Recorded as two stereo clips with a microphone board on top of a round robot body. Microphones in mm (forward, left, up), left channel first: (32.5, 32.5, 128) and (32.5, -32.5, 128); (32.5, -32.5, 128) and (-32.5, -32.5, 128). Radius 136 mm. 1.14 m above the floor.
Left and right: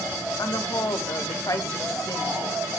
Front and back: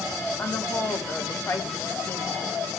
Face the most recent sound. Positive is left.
turn(degrees=60)